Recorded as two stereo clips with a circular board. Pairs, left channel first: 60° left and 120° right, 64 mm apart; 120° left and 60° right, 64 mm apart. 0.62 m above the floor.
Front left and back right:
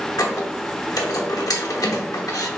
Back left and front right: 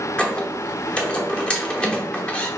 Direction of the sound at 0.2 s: 50° left.